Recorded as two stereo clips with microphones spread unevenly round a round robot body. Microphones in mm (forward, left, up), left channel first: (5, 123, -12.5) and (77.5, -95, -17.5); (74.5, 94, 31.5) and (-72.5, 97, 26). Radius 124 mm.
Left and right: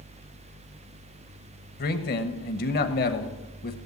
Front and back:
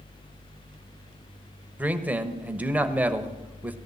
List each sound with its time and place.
1.8 s a man speaking: 110° left, 1.1 m